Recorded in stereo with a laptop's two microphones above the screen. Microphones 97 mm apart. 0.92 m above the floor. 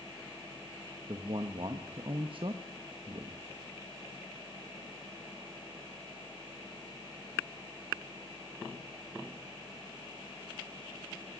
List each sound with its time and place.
1.1 s a man speaking: 60° right (ahead or behind), 1.0 m